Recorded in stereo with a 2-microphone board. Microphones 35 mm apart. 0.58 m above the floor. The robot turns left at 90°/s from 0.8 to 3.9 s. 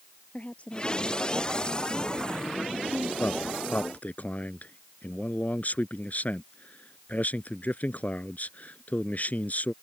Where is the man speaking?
115° left; by 9.7 s 50° left.